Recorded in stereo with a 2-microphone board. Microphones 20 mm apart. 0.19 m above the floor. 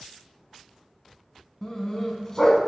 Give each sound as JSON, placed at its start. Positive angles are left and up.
{"t": 1.6, "sound": "a dog barking", "side_deg": 25, "distance_m": 0.6}